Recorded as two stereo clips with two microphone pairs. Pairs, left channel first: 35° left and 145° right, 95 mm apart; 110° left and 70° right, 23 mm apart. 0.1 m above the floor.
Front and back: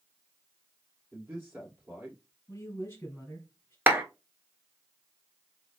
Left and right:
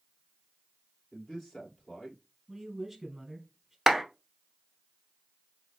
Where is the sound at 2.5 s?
Straight ahead, 1.7 m.